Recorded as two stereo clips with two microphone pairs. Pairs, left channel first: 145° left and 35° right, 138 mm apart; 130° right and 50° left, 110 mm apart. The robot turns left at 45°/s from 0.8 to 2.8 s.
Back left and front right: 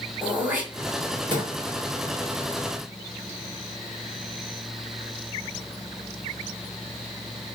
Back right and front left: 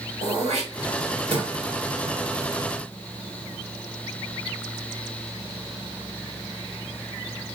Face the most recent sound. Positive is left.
turn(degrees=-45)